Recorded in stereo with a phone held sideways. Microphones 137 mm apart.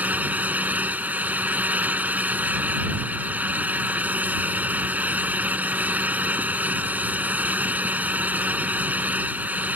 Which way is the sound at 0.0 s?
10° right (ahead or behind).